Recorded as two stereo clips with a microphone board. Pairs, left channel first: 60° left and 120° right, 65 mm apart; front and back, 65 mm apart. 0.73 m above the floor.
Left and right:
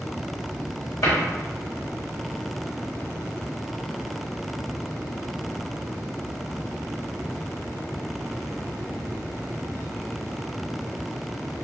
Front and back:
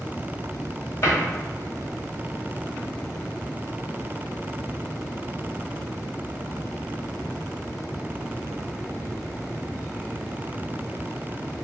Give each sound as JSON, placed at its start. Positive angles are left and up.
{"t": 1.0, "sound": "a cupboard door", "azimuth_deg": 40, "distance_m": 0.9}